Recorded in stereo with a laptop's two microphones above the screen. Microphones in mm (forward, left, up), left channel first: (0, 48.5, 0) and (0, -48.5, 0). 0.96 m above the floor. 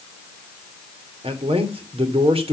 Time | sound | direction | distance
1.2 | a man speaking | 75° right (ahead or behind) | 3 m